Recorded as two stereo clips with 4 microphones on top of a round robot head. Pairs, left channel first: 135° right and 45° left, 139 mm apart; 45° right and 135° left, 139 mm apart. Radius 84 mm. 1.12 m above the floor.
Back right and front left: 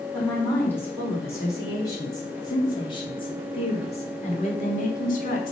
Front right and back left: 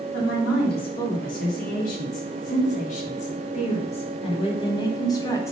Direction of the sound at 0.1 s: 55° right.